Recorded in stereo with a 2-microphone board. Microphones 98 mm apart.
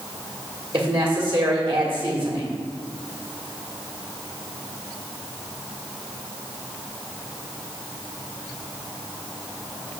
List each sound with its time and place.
0.7 s a woman speaking: 60° right (ahead or behind), 1.7 m